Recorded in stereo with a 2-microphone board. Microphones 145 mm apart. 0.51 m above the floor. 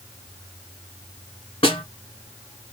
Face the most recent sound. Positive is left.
turn(degrees=35)  # may be behind; listen again after turning